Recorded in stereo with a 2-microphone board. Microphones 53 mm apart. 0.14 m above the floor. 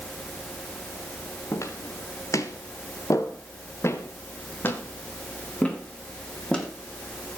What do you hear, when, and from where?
1.5 s footsteps: 70° left (ahead or behind), 4 m; by 6.7 s 10° left (ahead or behind), 6 m